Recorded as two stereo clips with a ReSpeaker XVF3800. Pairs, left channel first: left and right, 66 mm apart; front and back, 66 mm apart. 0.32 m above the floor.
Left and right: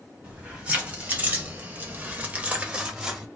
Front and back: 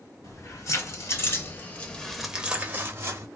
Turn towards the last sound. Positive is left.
turn(degrees=-165)